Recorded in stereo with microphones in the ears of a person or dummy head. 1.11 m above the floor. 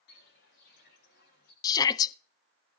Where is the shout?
25° left (ahead or behind), 0.6 m.